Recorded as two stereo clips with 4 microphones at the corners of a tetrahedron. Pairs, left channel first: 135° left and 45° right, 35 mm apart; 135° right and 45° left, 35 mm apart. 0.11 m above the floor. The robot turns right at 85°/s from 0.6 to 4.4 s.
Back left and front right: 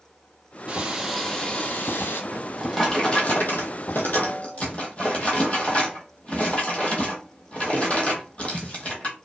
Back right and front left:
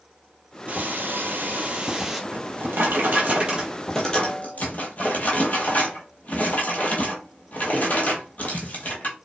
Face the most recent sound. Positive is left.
turn(degrees=-175)